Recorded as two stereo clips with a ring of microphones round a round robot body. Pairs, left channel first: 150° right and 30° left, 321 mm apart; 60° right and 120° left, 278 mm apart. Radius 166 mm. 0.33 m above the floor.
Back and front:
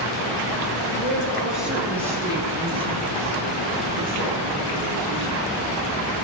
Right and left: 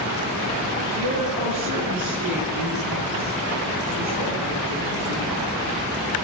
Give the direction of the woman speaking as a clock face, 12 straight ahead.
8 o'clock.